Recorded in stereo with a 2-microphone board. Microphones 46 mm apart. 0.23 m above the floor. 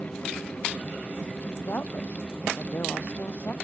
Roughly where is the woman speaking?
Left.